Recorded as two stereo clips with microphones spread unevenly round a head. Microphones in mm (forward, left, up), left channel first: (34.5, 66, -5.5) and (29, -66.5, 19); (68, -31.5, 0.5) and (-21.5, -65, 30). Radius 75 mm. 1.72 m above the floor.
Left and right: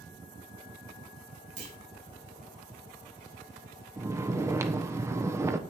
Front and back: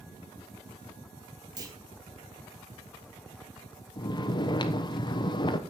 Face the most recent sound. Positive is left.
turn(degrees=-25)